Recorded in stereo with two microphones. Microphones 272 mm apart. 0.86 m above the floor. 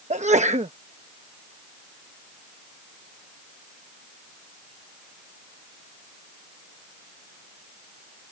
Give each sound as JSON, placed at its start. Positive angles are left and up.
{"t": 0.1, "sound": "a sneeze", "side_deg": -25}